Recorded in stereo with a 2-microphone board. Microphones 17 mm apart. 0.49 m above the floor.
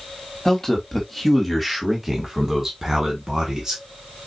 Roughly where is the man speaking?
Centre.